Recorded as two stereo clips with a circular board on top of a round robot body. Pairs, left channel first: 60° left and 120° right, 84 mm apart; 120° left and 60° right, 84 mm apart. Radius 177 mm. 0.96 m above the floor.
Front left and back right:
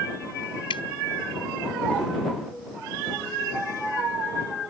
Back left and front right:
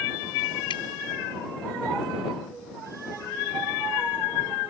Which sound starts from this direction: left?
Dripping, at 0.7 s.